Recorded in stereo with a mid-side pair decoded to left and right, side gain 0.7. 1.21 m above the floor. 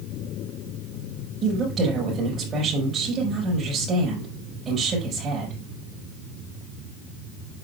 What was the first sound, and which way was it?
A woman speaking, 35° right.